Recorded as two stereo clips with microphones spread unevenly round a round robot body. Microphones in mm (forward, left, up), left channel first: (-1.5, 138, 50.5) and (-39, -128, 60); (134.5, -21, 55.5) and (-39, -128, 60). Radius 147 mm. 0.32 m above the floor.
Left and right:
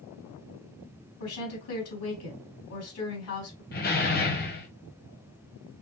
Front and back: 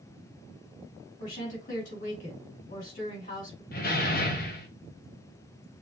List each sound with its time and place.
1.2 s a woman speaking: 80° left, 3.5 m
3.7 s a door slam: 45° left, 1.3 m